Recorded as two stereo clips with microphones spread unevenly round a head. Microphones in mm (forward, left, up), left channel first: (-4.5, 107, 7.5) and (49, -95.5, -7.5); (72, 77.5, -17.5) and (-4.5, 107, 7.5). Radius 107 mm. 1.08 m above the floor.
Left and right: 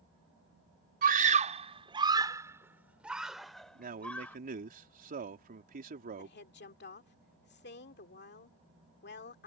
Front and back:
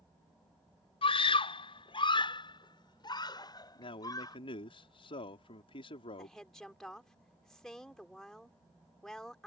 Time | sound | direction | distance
1.0 | a scream | 25° right | ?
3.8 | a man speaking | 25° right | ?
6.2 | a woman speaking | 65° left | ?